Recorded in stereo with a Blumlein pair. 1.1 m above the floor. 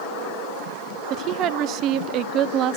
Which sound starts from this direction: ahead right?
A woman speaking, at 1.1 s.